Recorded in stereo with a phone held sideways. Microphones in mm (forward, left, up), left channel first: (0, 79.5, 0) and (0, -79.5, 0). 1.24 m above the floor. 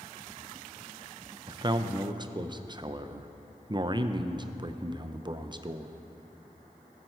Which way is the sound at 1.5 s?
30° right (ahead or behind).